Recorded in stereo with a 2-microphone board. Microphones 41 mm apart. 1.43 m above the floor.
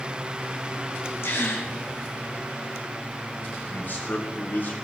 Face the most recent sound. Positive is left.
turn(degrees=50)  # may be behind; listen again after turning